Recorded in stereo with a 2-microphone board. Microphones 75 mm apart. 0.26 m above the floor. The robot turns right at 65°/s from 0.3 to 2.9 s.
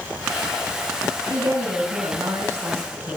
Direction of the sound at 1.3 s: 120° right.